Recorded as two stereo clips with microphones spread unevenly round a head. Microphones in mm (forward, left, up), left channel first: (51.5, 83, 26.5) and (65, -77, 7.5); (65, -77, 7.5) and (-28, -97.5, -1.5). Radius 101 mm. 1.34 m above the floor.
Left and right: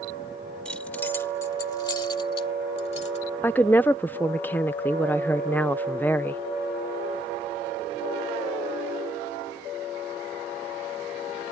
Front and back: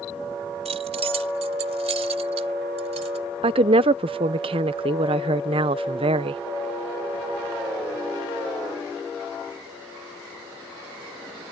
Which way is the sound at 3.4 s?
Straight behind.